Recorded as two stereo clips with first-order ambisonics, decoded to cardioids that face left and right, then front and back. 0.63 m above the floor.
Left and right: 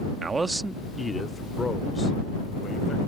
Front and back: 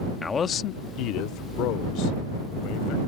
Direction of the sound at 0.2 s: 70° right.